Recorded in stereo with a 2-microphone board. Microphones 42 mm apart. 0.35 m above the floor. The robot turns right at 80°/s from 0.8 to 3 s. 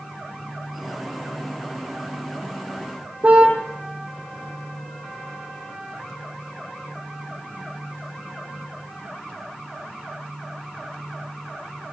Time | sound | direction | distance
3.2 | a car horn | 45° right (ahead or behind) | 7 m